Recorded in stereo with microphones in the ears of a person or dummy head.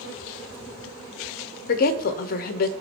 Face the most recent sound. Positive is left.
turn(degrees=55)  # may be behind; listen again after turning